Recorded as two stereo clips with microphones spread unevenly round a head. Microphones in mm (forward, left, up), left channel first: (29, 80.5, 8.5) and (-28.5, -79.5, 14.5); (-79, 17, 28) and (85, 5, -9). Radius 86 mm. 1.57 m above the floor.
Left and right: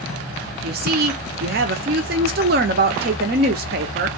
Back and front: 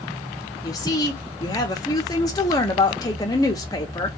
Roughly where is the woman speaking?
Behind right.